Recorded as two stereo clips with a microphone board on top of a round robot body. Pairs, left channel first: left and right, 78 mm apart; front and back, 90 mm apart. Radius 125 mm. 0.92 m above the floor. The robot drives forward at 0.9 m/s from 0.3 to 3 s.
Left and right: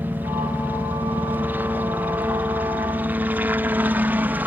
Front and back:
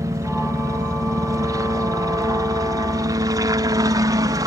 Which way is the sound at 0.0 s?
145° right.